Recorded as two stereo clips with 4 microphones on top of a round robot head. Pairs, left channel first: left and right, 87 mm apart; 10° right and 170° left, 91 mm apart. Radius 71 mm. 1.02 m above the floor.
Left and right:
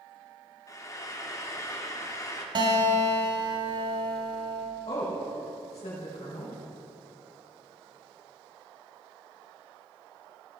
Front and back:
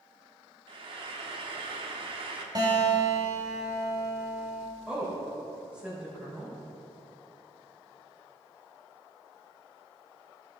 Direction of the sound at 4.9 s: 95° left.